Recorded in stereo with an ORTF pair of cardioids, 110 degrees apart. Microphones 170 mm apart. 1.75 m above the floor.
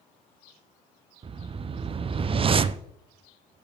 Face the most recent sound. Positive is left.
turn(degrees=-35)